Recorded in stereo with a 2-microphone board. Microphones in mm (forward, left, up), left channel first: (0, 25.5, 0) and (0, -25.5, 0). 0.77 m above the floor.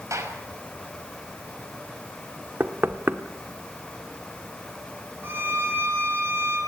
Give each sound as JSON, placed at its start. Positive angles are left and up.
{"t": 0.1, "sound": "a gunshot", "side_deg": -75, "distance_m": 4.5}
{"t": 2.6, "sound": "knocking", "side_deg": -45, "distance_m": 1.4}
{"t": 5.2, "sound": "a violin", "side_deg": -50, "distance_m": 7.5}